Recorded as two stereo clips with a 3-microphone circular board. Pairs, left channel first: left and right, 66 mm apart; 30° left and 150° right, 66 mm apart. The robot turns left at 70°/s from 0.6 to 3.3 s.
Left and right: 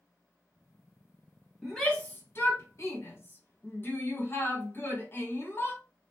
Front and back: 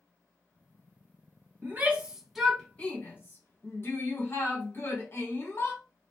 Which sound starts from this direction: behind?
A shout, at 1.6 s.